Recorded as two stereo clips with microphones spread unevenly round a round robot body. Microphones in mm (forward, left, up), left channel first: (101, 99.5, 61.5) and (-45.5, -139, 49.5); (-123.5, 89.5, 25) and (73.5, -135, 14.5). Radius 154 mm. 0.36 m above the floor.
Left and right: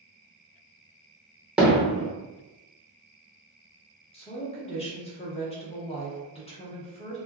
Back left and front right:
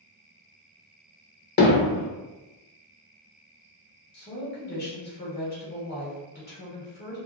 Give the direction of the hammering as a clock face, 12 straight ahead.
7 o'clock.